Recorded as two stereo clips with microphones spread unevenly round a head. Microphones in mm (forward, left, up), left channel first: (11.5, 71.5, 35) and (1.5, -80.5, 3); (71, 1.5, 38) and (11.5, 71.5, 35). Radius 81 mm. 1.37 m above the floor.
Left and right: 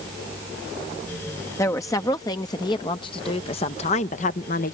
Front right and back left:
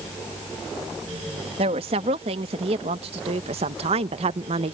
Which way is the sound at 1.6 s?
160° left.